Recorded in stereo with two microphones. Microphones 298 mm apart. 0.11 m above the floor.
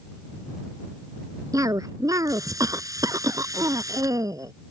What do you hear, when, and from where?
1.5 s a cough: 10° right (ahead or behind)